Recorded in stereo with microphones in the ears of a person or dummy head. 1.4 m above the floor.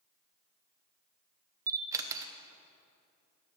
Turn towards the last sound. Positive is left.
turn(degrees=-15)  # may be behind; listen again after turning